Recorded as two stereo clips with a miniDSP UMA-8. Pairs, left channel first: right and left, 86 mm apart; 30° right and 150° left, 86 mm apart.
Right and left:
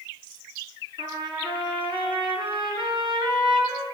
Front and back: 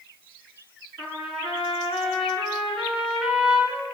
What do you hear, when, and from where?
1.0 s a trumpet: 70° left, 4.5 m